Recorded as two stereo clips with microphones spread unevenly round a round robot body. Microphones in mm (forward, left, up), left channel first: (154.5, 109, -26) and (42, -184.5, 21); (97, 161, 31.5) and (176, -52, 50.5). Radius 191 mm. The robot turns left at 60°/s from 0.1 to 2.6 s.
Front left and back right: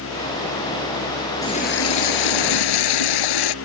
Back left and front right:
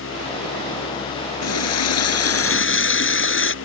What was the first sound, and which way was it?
A running tap, 150° left.